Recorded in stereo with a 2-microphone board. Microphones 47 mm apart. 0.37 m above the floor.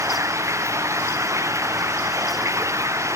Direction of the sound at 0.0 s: 85° right.